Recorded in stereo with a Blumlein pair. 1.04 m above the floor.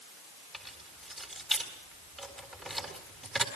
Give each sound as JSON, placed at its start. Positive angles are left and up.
{"t": 0.5, "sound": "keys jangling", "azimuth_deg": -10, "distance_m": 3.5}